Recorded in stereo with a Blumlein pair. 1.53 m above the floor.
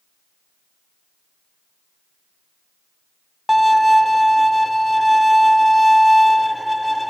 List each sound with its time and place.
3.5 s a violin: straight ahead, 0.7 m